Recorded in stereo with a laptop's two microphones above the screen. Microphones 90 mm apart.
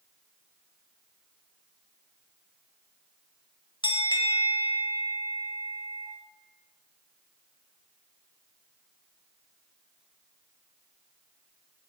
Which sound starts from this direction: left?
A bell, at 3.8 s.